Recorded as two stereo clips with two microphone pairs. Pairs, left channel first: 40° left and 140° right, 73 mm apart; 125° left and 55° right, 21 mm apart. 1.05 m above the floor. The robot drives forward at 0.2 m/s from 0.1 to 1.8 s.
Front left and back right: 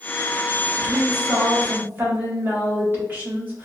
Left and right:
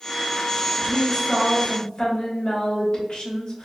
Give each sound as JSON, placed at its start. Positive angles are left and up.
{"t": 0.8, "sound": "a woman speaking", "azimuth_deg": 155, "distance_m": 1.4}